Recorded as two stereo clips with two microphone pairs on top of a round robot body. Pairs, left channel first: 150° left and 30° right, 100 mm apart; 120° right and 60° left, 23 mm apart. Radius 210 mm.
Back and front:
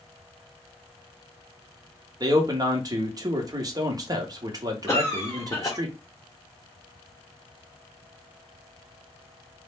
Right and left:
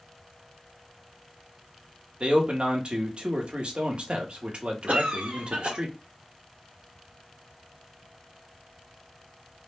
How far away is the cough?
About 0.6 m.